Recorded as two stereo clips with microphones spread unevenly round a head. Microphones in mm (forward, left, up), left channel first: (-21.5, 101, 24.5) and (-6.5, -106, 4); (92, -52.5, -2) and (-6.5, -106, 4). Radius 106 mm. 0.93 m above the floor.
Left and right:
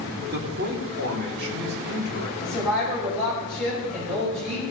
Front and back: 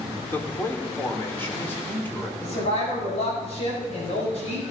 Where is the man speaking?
40° right, 2.5 m; by 2.3 s 45° right, 4 m.